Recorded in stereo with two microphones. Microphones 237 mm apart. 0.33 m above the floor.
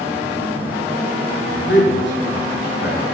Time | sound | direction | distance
1.7 | a man speaking | 50° left (ahead or behind) | 4.5 m